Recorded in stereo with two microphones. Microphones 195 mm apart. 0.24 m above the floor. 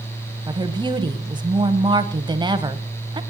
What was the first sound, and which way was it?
A woman speaking, 25° right (ahead or behind).